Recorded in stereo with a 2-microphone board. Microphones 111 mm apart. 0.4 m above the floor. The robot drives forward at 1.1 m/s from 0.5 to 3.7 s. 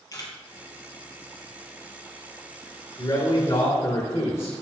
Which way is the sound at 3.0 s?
35° left (ahead or behind).